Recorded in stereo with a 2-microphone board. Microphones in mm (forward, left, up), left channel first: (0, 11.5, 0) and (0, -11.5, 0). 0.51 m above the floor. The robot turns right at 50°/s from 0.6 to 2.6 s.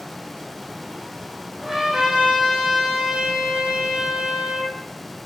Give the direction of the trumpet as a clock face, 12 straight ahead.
6 o'clock.